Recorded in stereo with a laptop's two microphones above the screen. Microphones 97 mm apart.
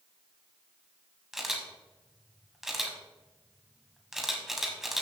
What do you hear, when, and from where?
1.3 s a camera shutter: 5° right (ahead or behind), 1.2 m